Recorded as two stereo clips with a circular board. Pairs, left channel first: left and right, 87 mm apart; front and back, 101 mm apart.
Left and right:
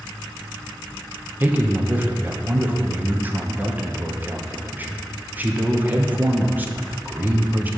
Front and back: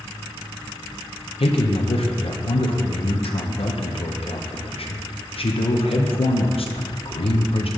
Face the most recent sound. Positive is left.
turn(degrees=-20)